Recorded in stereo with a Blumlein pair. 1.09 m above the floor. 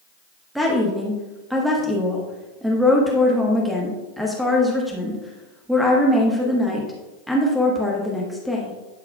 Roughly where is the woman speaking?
Ahead.